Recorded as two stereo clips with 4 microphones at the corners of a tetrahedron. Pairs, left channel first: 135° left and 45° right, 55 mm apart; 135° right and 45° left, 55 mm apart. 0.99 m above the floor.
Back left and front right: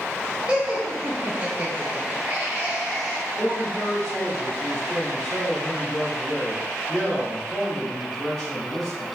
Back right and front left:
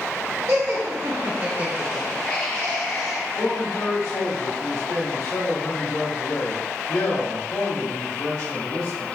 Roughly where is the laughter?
Ahead left.